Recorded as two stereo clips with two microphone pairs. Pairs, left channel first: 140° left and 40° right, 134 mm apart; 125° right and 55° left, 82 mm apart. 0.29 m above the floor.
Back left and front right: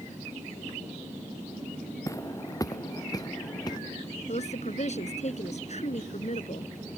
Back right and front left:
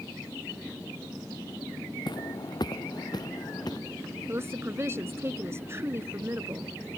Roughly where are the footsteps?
Behind right.